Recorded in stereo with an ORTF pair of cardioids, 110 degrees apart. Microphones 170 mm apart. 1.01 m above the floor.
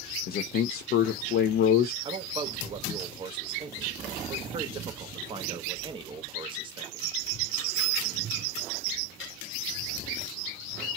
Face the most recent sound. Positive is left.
turn(degrees=-30)